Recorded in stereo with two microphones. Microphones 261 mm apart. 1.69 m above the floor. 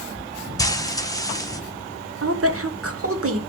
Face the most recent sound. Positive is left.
turn(degrees=-55)  # may be behind; listen again after turning